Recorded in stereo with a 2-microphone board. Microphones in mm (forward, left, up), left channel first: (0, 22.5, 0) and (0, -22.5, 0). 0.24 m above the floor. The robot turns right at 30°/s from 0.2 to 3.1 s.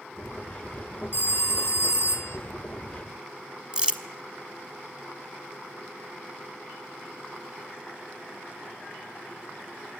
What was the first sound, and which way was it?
A phone ringing, 75° left.